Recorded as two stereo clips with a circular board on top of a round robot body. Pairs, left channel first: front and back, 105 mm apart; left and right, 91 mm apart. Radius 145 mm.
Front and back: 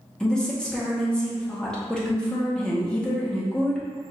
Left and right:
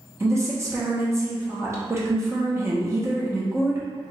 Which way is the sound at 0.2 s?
75° right.